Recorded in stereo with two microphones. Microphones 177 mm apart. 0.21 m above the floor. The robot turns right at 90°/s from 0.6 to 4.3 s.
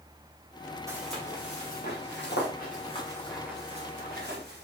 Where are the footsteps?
20° right (ahead or behind), 4.5 m; by 4.7 s 70° right (ahead or behind), 3.5 m.